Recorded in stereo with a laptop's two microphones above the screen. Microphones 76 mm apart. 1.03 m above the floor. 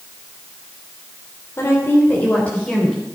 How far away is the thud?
I don't hear a thud.